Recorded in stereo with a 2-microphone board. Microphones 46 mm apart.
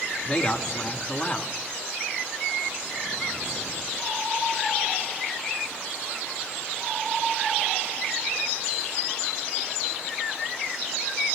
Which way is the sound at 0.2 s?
30° left (ahead or behind).